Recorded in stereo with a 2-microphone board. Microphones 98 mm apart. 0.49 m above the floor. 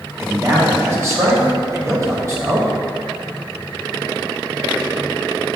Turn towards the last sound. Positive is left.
turn(degrees=-30)  # may be behind; listen again after turning